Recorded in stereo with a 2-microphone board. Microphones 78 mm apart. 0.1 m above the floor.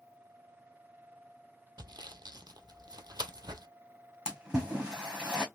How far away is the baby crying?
No baby crying in this recording.